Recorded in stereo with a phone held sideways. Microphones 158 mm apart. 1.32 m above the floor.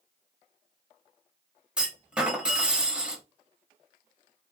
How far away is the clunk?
About 0.9 m.